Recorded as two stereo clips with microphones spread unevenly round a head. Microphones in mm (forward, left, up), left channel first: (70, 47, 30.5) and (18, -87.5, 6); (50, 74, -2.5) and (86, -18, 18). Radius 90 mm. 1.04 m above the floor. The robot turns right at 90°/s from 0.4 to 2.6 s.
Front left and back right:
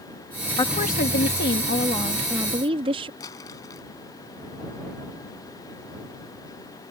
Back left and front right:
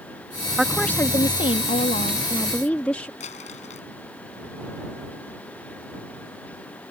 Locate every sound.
0.6 s a woman speaking: 10° left; by 3.1 s 165° right
3.2 s crumpling: 140° left